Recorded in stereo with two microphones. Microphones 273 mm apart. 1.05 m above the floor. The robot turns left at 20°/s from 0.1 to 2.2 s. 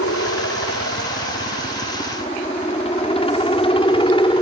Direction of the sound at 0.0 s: 60° left (ahead or behind).